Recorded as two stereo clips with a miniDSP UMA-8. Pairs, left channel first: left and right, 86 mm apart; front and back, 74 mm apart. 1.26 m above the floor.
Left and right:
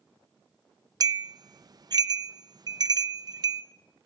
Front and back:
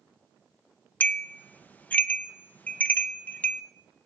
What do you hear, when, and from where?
1.0 s a bell: 65° right, 0.5 m